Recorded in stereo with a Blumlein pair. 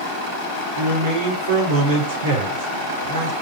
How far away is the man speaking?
About 2.5 m.